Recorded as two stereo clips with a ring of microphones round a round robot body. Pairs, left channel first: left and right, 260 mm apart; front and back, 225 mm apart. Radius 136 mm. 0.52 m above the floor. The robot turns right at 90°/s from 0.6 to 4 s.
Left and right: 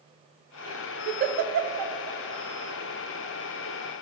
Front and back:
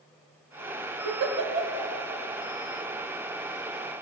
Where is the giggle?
160° right, 0.7 m; by 1.9 s 80° right, 0.7 m.